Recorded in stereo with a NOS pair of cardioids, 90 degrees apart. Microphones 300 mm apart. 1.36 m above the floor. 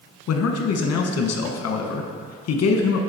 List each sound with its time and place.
0.3 s a man speaking: 55° left, 1.1 m